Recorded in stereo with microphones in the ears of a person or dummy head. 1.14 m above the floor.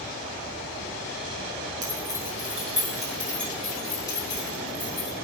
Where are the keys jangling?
20° right (ahead or behind), 1.7 m; by 5.2 s 30° left (ahead or behind), 2.5 m.